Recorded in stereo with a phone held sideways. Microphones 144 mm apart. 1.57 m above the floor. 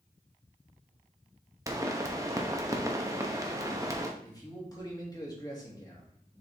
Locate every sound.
1.7 s a pop: 20° right (ahead or behind), 0.9 m
4.2 s a man speaking: 25° left (ahead or behind), 2.5 m